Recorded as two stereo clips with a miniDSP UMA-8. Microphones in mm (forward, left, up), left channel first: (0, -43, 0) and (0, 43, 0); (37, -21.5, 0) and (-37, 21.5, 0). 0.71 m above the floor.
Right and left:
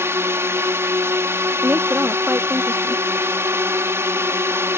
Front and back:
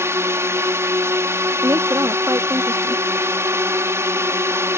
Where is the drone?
125° left.